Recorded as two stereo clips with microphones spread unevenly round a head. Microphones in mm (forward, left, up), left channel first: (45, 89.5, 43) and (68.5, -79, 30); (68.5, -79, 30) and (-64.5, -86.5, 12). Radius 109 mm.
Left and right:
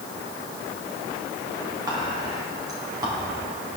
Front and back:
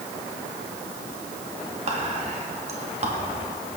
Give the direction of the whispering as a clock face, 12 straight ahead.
5 o'clock.